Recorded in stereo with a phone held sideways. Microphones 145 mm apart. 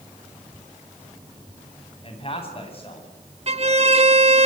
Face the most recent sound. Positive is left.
turn(degrees=-45)  # may be behind; listen again after turning